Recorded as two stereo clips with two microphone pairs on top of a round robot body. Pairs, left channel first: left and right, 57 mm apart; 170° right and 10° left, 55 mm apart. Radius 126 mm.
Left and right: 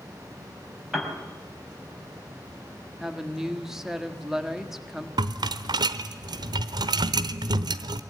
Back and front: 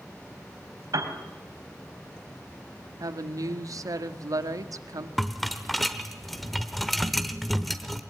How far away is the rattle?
About 0.9 m.